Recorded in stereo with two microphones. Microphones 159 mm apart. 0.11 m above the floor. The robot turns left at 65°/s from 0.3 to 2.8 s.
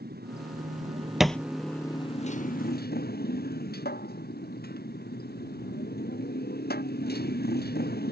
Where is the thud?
5° right (ahead or behind); by 1.4 s 10° left (ahead or behind).